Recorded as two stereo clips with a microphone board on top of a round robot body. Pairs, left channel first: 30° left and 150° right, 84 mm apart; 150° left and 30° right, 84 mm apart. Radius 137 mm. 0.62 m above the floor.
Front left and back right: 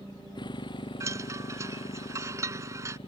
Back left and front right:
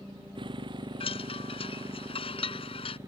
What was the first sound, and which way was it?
A motorcycle, 5° right.